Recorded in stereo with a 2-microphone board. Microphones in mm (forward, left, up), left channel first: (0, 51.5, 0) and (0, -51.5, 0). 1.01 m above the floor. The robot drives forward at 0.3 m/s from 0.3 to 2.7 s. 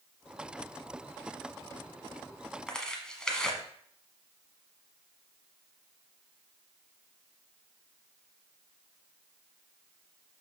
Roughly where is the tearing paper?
Centre.